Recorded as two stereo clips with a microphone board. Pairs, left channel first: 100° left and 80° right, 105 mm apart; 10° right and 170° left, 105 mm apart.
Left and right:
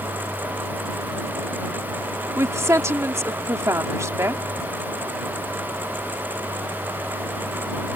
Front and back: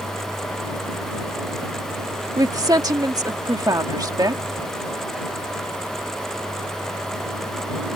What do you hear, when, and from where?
2.4 s a woman speaking: 140° right